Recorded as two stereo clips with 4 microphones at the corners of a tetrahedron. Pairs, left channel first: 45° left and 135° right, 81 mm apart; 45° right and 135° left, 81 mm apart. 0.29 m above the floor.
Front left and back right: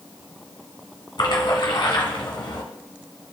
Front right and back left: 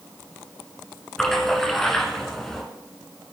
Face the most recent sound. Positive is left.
turn(degrees=35)